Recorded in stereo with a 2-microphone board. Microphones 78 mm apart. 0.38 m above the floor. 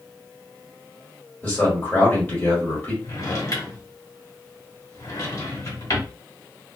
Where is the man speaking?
25° left (ahead or behind), 1.5 m.